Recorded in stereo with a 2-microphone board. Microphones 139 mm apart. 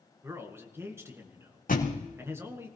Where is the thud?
85° left, 2.5 m.